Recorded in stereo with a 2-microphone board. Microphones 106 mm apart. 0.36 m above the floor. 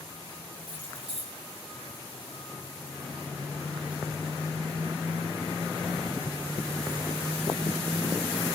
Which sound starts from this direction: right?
Keys jangling, at 0.6 s.